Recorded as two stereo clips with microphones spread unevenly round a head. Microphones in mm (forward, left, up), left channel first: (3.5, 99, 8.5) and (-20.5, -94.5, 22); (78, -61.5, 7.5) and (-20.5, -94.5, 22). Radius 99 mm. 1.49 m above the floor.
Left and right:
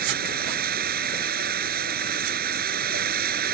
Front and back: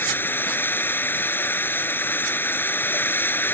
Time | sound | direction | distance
0.0 | running water | 55° right | ?